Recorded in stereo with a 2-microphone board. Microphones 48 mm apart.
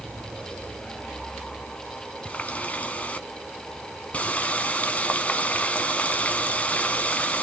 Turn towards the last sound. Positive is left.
turn(degrees=25)  # may be behind; listen again after turning